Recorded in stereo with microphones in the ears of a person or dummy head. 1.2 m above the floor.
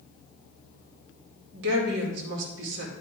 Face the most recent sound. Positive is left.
turn(degrees=-70)  # may be behind; listen again after turning